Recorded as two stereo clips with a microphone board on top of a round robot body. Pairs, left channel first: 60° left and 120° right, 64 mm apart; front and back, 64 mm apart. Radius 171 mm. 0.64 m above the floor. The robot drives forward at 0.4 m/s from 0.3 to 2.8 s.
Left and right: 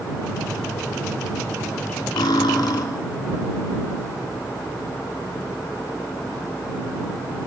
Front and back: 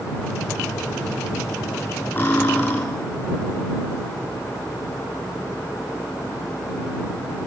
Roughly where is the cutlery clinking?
Ahead left.